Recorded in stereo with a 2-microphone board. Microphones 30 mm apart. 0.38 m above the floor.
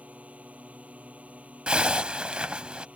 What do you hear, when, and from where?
0.0 s a drone: 50° right (ahead or behind)
1.7 s a zipper: 35° right (ahead or behind)